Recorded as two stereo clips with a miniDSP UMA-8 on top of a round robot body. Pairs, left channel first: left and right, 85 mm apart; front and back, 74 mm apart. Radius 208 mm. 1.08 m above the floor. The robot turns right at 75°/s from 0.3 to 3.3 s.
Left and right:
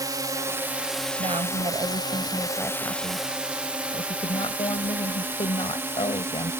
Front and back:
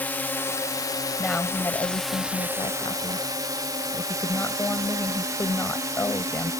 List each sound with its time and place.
0.0 s a drone: 60° right; by 6.6 s 145° right
1.2 s a woman speaking: 95° right; by 6.5 s 65° left